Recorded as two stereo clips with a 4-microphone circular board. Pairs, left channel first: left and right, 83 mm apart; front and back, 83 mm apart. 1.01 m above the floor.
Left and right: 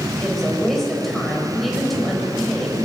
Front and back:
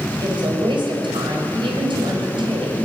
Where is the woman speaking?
Straight behind, 6 m.